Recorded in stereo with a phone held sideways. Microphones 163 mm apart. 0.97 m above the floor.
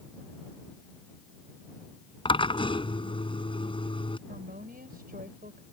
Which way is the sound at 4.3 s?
65° right (ahead or behind).